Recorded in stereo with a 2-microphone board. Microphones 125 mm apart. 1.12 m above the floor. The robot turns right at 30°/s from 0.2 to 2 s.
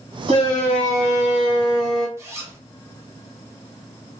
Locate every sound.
0.3 s a shout: 55° right, 1.4 m; by 2.1 s 5° right, 1.4 m
2.2 s a zipper: 20° right (ahead or behind), 1.0 m